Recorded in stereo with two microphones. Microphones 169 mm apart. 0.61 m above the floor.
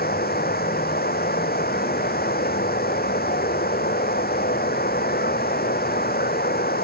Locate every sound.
0.0 s running water: 65° left (ahead or behind)